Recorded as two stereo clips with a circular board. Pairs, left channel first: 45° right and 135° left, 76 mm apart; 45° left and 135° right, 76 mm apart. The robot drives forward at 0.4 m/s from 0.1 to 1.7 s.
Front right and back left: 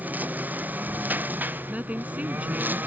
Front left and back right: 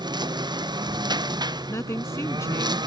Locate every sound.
0.0 s a lawn mower: 155° right; by 2.9 s 160° right
1.7 s a woman speaking: 75° left